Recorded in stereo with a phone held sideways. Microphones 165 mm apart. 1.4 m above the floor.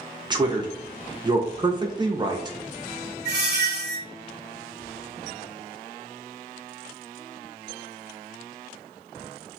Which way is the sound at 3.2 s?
50° left (ahead or behind).